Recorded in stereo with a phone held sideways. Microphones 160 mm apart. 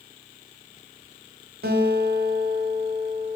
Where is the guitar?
85° right, 1.3 m.